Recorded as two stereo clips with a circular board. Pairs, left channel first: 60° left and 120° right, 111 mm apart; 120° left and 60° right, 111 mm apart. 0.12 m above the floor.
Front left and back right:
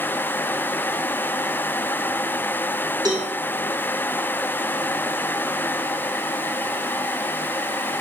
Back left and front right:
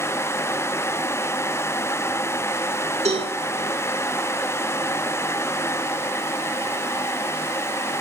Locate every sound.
3.0 s a cowbell: 70° right, 4.5 m